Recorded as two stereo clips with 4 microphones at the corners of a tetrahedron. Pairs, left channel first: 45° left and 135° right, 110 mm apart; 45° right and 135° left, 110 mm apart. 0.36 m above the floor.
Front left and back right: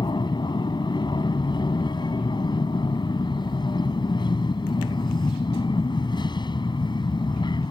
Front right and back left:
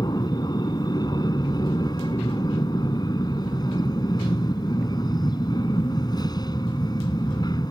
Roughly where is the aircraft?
Ahead.